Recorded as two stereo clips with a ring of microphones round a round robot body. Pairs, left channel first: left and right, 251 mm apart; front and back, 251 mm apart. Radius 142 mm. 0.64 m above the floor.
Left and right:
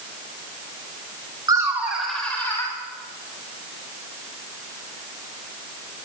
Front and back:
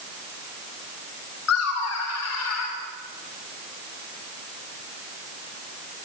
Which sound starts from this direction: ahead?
Laughter, at 1.5 s.